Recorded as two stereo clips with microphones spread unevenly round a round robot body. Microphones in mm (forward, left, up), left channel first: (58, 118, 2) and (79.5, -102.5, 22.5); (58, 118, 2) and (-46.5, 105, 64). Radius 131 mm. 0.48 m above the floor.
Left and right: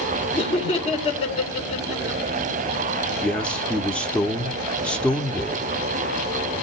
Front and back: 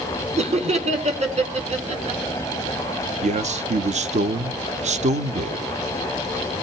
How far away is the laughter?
About 2 m.